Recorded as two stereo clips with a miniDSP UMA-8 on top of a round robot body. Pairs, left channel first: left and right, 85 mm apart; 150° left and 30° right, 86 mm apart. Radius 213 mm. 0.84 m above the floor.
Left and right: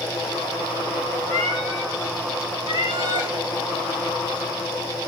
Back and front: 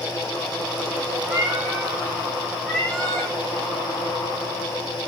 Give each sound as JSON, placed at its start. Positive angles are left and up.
{"t": 1.3, "sound": "a cat meowing", "azimuth_deg": 45, "distance_m": 1.1}